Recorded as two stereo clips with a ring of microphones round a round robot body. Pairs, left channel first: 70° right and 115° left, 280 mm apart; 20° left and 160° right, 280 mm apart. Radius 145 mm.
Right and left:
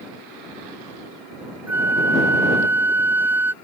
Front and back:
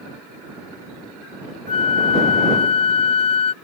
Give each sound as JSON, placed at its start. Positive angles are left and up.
{"t": 1.7, "sound": "a flute", "azimuth_deg": 40}